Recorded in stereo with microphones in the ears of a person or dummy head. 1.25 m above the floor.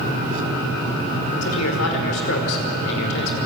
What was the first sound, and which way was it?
A man speaking, 85° left.